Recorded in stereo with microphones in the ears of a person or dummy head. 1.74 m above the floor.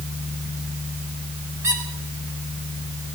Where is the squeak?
15° right (ahead or behind), 2 m.